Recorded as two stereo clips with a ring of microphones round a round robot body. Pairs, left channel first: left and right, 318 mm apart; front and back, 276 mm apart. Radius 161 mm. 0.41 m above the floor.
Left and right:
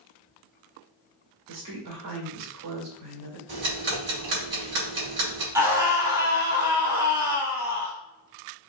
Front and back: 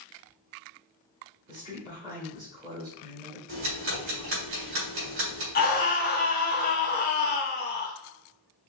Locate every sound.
1.5 s a woman speaking: 105° right, 1.9 m
3.5 s ticking: 140° right, 2.5 m
5.5 s a scream: 15° right, 1.5 m